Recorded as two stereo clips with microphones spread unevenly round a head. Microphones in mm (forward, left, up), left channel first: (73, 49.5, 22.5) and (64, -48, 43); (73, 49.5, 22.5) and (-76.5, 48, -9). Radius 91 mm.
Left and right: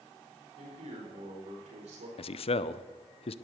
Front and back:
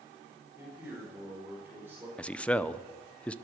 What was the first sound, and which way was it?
A man speaking, 100° right.